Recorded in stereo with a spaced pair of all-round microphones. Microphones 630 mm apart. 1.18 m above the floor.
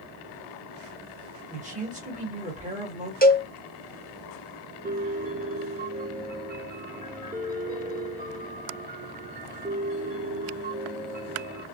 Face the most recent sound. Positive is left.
turn(degrees=-15)  # may be behind; listen again after turning